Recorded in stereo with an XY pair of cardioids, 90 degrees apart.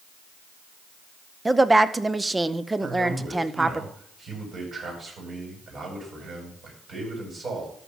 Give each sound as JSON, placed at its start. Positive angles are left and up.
{"t": 1.4, "sound": "a woman speaking", "azimuth_deg": -20, "distance_m": 0.8}
{"t": 2.8, "sound": "a man speaking", "azimuth_deg": -55, "distance_m": 7.5}